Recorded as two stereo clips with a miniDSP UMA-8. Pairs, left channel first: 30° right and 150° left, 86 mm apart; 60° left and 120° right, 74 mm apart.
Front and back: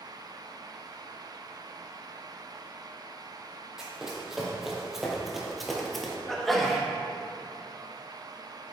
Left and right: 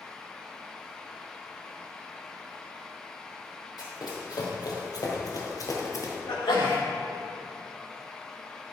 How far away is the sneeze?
About 1.8 m.